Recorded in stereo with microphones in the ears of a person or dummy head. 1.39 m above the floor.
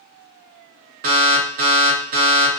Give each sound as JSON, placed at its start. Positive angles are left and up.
{"t": 1.0, "sound": "an alarm", "side_deg": -45, "distance_m": 0.8}